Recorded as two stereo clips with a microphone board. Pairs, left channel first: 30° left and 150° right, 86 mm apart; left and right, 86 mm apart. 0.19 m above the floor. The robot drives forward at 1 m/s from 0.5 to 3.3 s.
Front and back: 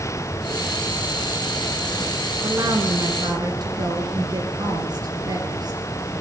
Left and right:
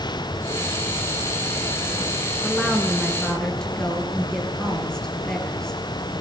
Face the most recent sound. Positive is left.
turn(degrees=175)